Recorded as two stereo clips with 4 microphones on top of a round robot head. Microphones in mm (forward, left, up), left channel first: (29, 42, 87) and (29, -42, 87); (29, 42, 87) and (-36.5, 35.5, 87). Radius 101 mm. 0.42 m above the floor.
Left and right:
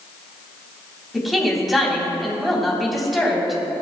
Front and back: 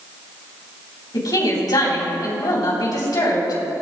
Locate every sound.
1.1 s a woman speaking: straight ahead, 3.5 m